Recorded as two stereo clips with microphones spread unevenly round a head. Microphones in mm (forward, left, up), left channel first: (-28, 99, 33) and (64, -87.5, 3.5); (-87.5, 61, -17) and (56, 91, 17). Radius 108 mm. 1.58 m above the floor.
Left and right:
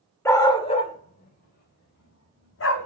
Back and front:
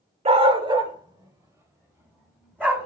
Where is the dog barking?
45° left, 2 m; by 2.9 s 90° left, 5 m.